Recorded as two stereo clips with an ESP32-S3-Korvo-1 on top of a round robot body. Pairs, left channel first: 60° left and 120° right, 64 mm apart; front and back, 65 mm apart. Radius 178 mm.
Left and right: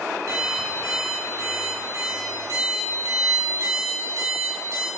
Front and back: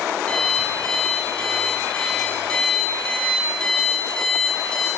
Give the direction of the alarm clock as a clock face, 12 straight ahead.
2 o'clock.